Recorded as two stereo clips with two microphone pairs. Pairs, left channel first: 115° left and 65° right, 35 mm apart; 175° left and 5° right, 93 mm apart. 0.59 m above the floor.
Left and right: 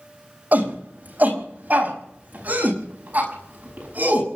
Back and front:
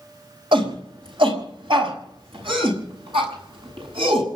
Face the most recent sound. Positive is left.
turn(degrees=-30)